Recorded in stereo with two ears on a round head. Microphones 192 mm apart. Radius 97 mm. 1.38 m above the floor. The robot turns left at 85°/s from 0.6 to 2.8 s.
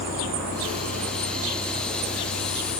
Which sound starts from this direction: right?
A vehicle, at 0.0 s.